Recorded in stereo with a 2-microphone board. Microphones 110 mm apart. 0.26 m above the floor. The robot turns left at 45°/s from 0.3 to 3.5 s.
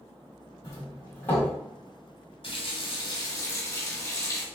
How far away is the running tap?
About 1.1 m.